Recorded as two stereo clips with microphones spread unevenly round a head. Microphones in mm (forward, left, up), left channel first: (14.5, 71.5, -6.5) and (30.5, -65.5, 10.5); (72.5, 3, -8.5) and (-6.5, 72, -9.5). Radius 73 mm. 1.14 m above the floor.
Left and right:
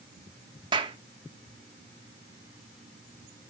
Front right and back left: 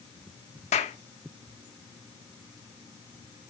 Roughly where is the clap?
Ahead right.